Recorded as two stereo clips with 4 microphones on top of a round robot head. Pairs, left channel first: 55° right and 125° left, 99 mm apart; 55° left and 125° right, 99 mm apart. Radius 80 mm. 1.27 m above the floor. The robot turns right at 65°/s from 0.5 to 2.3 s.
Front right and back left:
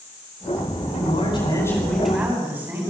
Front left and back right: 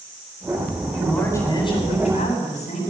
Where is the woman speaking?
35° right, 9.5 m; by 2.9 s 55° left, 9.5 m.